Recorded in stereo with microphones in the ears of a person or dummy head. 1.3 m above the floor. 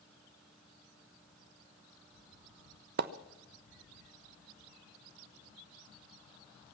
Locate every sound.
3.0 s a splash: 55° right (ahead or behind), 0.6 m